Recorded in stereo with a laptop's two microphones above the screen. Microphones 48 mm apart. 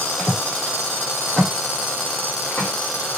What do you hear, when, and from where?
0.2 s footsteps: 10° left (ahead or behind), 1.2 m; by 2.7 s 20° left (ahead or behind), 2 m